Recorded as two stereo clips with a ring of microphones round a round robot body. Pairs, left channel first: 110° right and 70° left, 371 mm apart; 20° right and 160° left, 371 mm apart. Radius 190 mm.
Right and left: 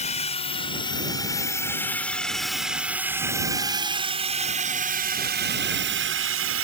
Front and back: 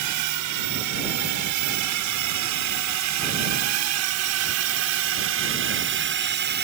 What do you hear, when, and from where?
0.0 s a drone: straight behind; by 6.6 s 105° left